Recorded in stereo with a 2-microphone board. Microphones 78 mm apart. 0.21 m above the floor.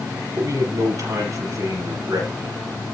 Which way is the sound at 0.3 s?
45° right (ahead or behind).